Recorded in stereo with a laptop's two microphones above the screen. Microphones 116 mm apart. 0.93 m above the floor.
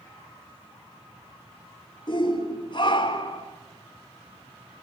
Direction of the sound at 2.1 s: 45° left (ahead or behind).